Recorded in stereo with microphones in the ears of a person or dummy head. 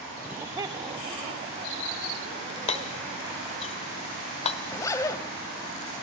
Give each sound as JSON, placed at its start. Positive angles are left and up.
{"t": 0.2, "sound": "laughter", "side_deg": -5, "distance_m": 0.9}
{"t": 2.7, "sound": "hammering", "side_deg": 30, "distance_m": 1.4}
{"t": 4.7, "sound": "a zipper", "side_deg": 20, "distance_m": 2.5}